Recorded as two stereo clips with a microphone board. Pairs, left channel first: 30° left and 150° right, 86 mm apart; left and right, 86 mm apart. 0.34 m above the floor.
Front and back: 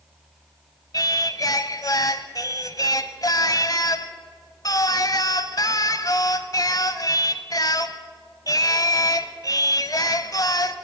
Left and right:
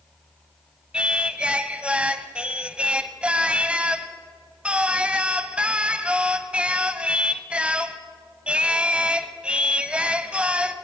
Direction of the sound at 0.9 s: 15° right.